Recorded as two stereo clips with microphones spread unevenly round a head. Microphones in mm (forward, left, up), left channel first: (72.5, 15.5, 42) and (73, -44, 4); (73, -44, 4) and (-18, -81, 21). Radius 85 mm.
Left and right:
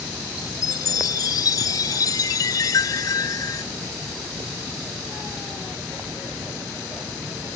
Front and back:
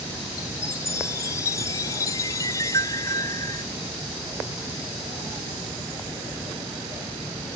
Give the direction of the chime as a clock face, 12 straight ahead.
9 o'clock.